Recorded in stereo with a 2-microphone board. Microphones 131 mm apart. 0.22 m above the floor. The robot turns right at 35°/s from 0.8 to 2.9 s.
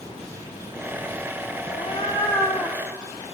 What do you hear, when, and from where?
1.7 s a cat meowing: 135° left, 0.8 m; by 2.8 s 175° left, 0.8 m